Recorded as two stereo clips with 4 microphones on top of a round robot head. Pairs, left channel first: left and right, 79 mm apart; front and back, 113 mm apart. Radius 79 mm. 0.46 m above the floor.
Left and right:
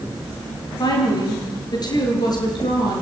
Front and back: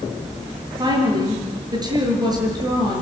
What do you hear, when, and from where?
0.8 s a woman speaking: 125° left, 7.5 m